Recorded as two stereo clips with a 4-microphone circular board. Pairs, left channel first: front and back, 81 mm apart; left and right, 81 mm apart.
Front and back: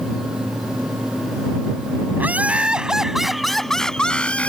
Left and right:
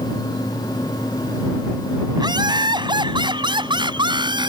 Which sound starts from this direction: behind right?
Laughter, at 2.2 s.